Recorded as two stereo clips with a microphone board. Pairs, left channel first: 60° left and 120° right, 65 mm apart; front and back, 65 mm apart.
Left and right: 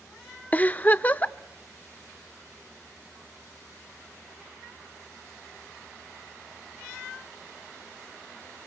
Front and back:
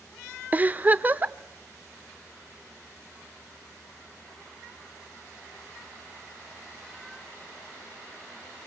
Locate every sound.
0.5 s a giggle: 120° left, 0.6 m